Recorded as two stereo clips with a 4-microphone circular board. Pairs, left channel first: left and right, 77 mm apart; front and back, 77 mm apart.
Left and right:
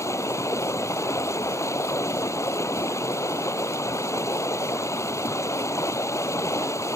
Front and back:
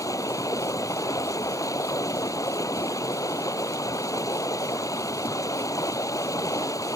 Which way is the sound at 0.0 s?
45° left.